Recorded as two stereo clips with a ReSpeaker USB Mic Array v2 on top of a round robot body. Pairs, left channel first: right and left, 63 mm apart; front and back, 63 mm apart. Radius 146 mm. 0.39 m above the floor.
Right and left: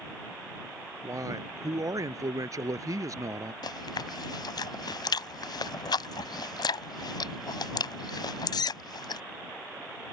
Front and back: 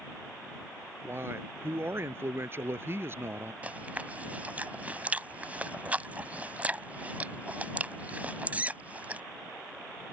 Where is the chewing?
110° right.